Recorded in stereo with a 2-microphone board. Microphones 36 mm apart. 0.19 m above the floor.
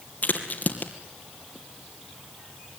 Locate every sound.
0.2 s a crack: 50° left (ahead or behind), 2.5 m